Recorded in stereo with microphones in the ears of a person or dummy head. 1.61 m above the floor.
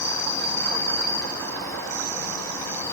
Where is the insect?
15° left (ahead or behind), 4.5 m.